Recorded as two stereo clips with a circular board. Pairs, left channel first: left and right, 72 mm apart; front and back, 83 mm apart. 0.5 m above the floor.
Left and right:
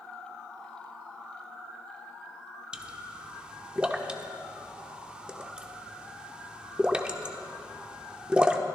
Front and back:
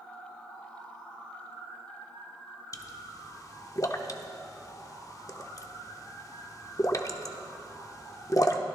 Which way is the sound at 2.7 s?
20° right.